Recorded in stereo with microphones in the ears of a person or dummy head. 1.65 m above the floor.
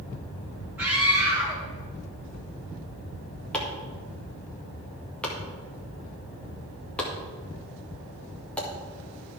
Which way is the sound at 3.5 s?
10° left (ahead or behind).